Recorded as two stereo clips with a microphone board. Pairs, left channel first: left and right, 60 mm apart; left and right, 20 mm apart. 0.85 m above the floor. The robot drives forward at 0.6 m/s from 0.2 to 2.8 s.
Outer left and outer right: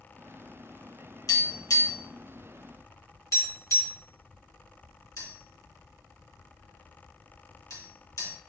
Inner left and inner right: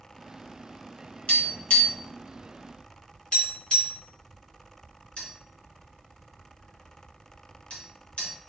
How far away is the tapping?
About 3.5 m.